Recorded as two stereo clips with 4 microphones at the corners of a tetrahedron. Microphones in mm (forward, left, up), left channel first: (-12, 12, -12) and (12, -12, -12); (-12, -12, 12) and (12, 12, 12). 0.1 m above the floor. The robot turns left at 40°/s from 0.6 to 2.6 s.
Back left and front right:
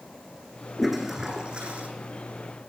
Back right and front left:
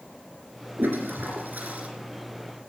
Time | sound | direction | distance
0.8 | a toilet flushing | 45° left | 3 m